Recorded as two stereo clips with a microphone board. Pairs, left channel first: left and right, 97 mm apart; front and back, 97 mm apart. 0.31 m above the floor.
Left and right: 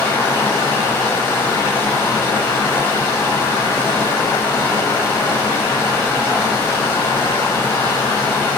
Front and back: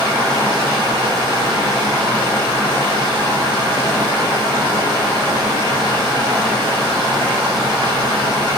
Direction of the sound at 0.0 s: 150° left.